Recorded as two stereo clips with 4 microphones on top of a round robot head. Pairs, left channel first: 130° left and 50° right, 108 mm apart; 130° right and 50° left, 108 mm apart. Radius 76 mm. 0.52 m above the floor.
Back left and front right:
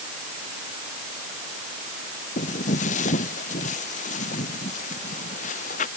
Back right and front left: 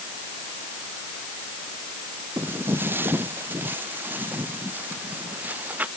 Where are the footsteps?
125° left; by 5.9 s 130° left.